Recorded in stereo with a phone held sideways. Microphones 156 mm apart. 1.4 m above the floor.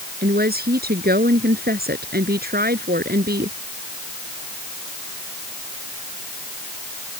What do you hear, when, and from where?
0.2 s a woman speaking: 85° right